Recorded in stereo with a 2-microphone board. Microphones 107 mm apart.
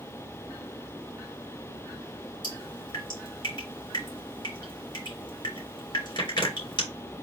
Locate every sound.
2.4 s dripping: 50° left (ahead or behind), 3 m